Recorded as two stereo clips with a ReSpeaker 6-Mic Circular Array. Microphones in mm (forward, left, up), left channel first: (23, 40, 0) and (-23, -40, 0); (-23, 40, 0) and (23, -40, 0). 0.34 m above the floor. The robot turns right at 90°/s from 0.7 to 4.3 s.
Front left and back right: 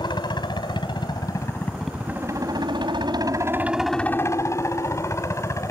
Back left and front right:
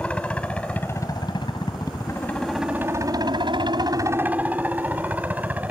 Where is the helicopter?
45° left; by 5.7 s 10° left.